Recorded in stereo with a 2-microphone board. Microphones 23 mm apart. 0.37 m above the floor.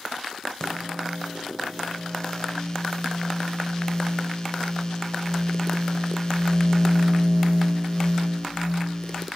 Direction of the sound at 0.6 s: 35° left (ahead or behind).